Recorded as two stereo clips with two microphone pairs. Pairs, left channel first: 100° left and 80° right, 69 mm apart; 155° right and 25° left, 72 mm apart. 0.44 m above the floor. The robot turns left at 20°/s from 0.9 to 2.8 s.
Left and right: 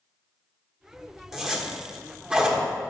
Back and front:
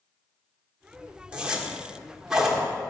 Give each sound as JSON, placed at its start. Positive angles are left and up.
{"t": 1.3, "sound": "a zipper", "azimuth_deg": -5, "distance_m": 1.4}